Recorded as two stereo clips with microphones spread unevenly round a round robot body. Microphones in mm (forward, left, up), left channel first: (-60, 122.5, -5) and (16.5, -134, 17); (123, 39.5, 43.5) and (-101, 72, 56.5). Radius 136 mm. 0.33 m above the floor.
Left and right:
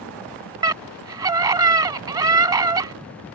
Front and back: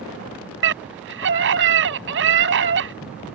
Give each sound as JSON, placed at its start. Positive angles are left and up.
{"t": 0.6, "sound": "a scream", "azimuth_deg": -150}